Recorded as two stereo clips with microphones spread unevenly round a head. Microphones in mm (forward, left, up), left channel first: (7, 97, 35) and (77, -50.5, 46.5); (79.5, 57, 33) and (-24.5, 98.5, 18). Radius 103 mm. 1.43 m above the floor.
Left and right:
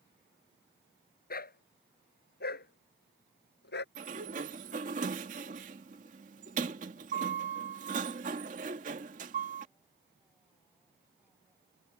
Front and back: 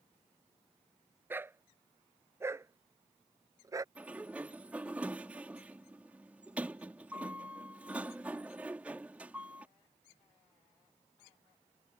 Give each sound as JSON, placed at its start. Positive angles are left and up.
{"t": 1.3, "sound": "a dog barking", "azimuth_deg": 85}
{"t": 4.0, "sound": "a sliding door", "azimuth_deg": -115}